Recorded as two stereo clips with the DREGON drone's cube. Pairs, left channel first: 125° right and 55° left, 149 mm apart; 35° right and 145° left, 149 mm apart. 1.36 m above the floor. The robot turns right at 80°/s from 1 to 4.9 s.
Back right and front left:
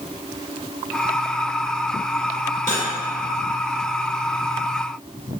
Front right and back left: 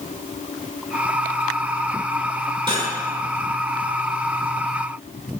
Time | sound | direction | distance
2.7 | cutlery clinking | 90° left | 3 m